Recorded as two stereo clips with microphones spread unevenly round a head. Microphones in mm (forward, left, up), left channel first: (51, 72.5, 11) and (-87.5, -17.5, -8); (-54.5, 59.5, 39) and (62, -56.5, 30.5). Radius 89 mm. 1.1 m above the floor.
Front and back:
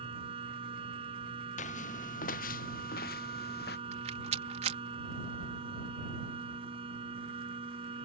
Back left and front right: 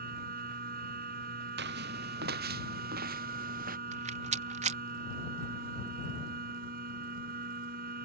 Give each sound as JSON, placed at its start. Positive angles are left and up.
{"t": 0.0, "sound": "a machine running", "azimuth_deg": -85}
{"t": 1.6, "sound": "footsteps", "azimuth_deg": -20}
{"t": 3.9, "sound": "a rattle", "azimuth_deg": -90}